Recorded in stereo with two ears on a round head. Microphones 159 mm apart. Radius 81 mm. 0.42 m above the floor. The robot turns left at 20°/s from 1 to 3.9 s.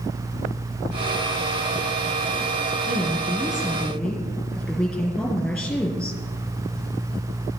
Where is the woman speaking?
15° right (ahead or behind), 5.5 m; by 6.2 s 5° left (ahead or behind), 5.5 m.